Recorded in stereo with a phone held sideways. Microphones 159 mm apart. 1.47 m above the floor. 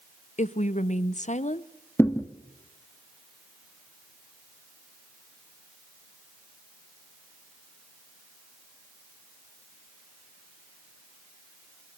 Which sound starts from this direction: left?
A woman speaking, at 0.4 s.